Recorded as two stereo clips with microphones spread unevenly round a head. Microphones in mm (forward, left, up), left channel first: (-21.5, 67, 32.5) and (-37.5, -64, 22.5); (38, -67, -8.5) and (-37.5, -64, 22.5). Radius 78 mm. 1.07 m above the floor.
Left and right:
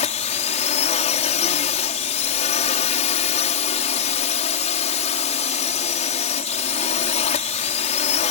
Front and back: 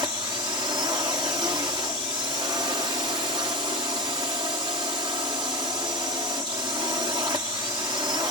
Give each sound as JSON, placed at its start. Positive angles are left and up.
{"t": 0.0, "sound": "a drone", "azimuth_deg": 115}